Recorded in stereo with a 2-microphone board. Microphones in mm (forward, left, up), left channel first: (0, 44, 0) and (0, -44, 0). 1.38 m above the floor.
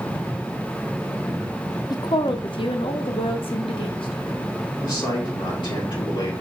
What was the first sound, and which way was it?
A woman speaking, 50° left (ahead or behind).